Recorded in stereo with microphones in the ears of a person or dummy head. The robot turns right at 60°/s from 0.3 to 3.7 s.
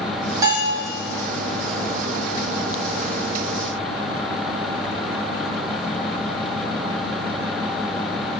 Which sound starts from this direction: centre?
A bell, at 0.4 s.